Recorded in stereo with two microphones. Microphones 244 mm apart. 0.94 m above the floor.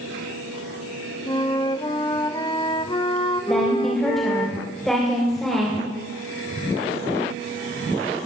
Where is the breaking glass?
I don't hear breaking glass.